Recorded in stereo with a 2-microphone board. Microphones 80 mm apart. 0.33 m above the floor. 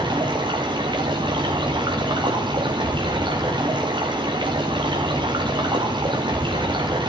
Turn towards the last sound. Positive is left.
turn(degrees=-75)  # may be behind; listen again after turning